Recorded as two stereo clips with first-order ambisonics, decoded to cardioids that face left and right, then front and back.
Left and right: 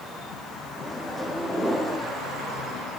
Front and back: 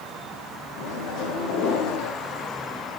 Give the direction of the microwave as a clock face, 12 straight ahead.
12 o'clock.